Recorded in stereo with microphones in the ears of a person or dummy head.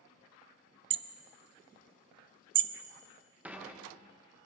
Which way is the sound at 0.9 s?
35° right (ahead or behind).